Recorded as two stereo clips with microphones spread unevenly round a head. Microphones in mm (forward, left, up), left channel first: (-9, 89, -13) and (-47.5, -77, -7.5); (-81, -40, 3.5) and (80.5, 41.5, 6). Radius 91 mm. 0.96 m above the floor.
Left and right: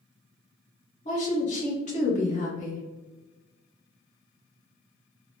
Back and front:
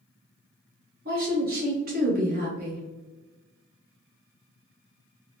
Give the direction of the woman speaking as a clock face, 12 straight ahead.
11 o'clock.